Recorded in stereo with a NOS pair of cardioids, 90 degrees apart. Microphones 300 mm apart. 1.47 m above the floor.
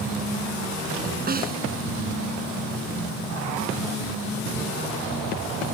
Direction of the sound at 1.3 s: 30° right.